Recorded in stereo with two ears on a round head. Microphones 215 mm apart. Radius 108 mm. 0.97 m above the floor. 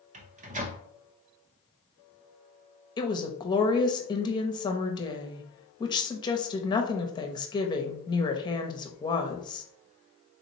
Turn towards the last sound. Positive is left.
turn(degrees=20)  # may be behind; listen again after turning